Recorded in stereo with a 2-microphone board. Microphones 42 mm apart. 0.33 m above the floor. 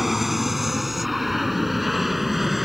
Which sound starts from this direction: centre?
An aircraft, at 0.0 s.